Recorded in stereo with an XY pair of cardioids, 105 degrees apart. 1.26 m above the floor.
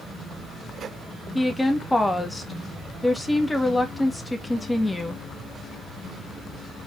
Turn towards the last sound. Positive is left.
turn(degrees=10)